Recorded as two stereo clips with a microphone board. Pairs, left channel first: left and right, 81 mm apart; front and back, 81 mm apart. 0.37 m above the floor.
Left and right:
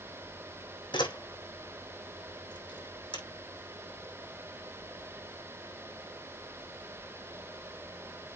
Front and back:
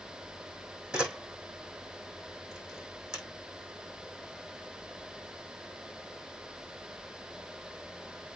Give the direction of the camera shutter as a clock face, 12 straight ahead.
9 o'clock.